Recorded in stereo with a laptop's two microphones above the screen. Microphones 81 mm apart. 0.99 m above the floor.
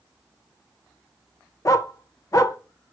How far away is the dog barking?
About 0.8 m.